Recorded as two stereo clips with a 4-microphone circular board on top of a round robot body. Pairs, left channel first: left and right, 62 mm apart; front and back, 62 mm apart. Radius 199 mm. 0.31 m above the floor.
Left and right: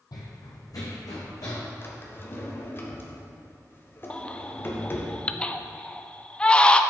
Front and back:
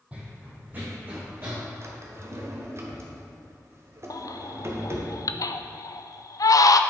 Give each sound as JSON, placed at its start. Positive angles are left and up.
{"t": 0.1, "sound": "running footsteps", "azimuth_deg": 110, "distance_m": 1.3}
{"t": 1.8, "sound": "a drawer", "azimuth_deg": 140, "distance_m": 1.4}
{"t": 4.1, "sound": "a baby crying", "azimuth_deg": 15, "distance_m": 0.5}